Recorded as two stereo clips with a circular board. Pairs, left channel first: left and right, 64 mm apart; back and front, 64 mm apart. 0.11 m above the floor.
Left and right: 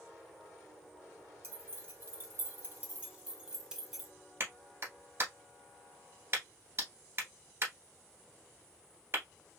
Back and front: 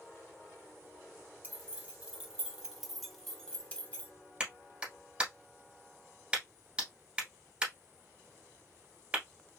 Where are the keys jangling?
50° right, 1.8 m; by 4.1 s 175° right, 1.2 m.